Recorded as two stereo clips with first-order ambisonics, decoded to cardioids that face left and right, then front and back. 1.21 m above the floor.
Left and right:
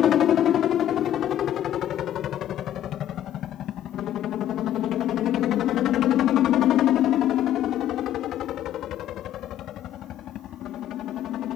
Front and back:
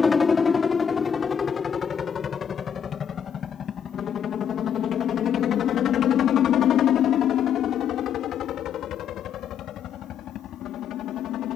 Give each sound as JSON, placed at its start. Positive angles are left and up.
{"t": 0.0, "sound": "a helicopter", "azimuth_deg": 70}